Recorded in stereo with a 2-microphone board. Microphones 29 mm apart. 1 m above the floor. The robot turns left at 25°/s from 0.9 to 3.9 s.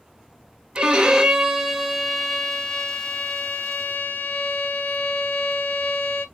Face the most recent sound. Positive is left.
turn(degrees=135)